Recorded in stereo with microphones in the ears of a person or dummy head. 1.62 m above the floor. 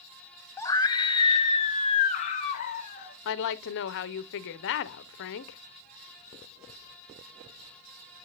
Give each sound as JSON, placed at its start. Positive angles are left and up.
{"t": 0.6, "sound": "a scream", "side_deg": 15, "distance_m": 0.7}
{"t": 3.2, "sound": "a woman speaking", "side_deg": 55, "distance_m": 0.8}